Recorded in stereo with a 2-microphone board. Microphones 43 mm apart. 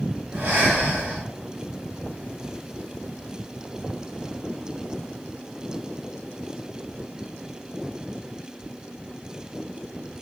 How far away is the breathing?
About 0.6 m.